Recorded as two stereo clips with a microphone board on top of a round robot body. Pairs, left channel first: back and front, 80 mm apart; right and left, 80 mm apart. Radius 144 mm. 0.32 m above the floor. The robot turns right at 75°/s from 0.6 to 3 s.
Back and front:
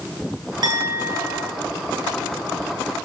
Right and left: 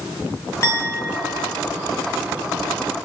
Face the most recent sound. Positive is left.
turn(degrees=145)